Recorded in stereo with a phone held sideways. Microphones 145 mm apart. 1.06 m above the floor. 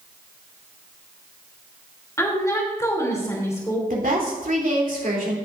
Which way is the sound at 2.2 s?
20° left (ahead or behind).